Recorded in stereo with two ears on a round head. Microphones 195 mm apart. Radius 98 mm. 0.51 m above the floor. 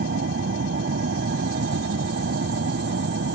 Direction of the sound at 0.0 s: 50° right (ahead or behind).